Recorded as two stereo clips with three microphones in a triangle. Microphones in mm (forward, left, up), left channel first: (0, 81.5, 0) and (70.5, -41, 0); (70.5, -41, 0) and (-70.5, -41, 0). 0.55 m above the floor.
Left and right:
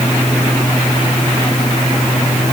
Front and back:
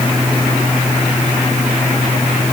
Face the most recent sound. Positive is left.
No sound to turn to.